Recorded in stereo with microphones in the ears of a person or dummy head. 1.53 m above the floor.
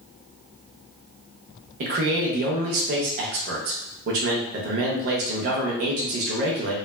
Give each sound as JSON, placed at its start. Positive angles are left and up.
{"t": 1.8, "sound": "a man speaking", "side_deg": -45, "distance_m": 0.5}